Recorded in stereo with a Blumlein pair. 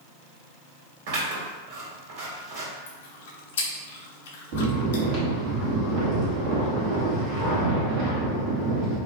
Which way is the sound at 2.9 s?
60° left.